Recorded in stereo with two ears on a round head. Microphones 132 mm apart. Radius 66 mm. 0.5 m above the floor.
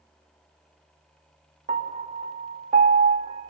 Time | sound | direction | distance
1.7 | a piano | 45° right (ahead or behind) | 1.3 m